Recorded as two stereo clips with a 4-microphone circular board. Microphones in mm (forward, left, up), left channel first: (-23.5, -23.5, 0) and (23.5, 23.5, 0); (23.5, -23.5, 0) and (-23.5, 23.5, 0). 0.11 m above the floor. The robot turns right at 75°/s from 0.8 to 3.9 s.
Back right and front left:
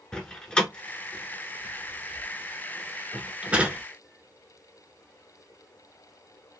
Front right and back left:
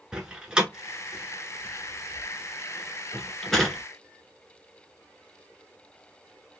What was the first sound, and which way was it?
A door slam, straight behind.